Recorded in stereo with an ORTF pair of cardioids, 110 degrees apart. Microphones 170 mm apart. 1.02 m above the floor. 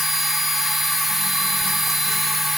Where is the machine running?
Straight ahead, 1.0 m.